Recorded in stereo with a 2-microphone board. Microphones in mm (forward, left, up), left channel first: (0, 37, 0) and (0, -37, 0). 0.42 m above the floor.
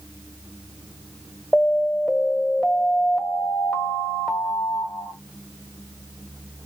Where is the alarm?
15° left (ahead or behind), 1.1 m.